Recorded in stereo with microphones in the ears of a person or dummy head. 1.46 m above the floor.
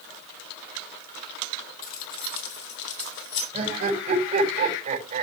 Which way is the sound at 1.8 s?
50° left (ahead or behind).